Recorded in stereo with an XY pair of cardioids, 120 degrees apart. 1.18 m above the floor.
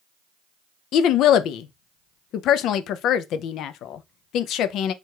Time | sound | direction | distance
0.9 | a woman speaking | 70° left | 0.6 m